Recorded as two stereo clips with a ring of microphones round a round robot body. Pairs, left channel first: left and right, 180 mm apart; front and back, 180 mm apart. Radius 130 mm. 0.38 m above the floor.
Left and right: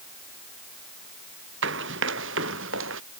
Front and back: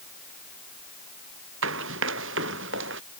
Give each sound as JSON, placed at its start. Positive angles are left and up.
{"t": 1.6, "sound": "running footsteps", "azimuth_deg": -135}